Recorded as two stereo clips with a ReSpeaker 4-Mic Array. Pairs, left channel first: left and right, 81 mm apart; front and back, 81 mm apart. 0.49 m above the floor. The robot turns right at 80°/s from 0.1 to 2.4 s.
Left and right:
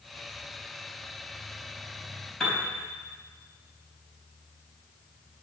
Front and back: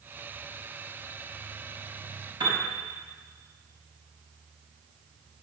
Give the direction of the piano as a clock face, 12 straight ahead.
6 o'clock.